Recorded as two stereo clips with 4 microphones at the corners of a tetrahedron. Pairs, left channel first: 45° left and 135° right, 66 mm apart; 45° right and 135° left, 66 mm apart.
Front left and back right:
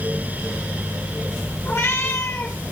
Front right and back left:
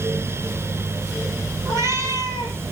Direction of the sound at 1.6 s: 95° left.